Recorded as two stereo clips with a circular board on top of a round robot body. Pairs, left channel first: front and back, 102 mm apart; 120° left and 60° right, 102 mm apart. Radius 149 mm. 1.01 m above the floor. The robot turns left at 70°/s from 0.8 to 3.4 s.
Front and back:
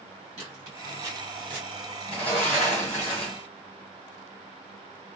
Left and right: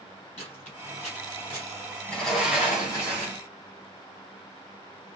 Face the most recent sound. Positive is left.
turn(degrees=-50)